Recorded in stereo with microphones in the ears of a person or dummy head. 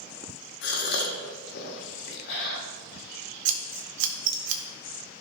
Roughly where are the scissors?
Right.